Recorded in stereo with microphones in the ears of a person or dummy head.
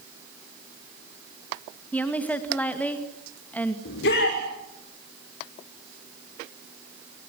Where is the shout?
70° left (ahead or behind), 6 m.